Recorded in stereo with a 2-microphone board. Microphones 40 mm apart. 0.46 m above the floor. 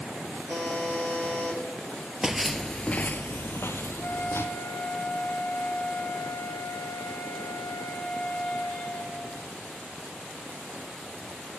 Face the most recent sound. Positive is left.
turn(degrees=50)  # may be behind; listen again after turning